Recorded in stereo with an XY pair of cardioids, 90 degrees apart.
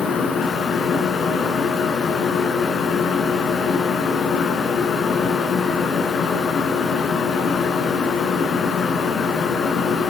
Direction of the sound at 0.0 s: 70° left.